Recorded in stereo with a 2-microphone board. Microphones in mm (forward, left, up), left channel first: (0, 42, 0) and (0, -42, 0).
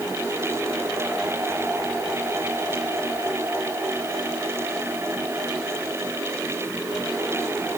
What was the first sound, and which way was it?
Only background noise.